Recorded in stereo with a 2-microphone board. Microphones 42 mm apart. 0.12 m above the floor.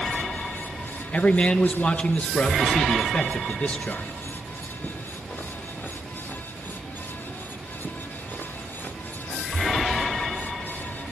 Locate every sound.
1.1 s a man speaking: 30° left (ahead or behind), 2 m